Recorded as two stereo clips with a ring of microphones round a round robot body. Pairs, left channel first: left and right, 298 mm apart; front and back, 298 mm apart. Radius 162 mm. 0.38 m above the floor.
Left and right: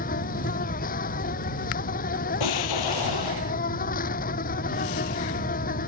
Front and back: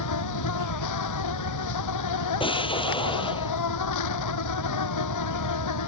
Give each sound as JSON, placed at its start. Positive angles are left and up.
{"t": 0.0, "sound": "an insect", "azimuth_deg": 25}
{"t": 2.4, "sound": "an explosion", "azimuth_deg": 75}